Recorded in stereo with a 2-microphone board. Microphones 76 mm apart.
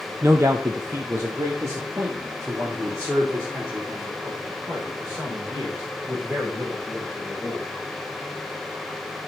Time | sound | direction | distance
0.2 | a man speaking | 40° right (ahead or behind) | 0.6 m